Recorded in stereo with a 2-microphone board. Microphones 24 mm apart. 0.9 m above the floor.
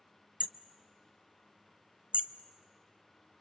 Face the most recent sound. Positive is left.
turn(degrees=-55)  # may be behind; listen again after turning